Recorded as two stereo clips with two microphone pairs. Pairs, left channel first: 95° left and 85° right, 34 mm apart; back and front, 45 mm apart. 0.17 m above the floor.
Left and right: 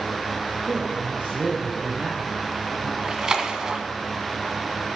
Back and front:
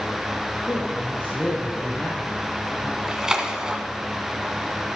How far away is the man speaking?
About 3.5 m.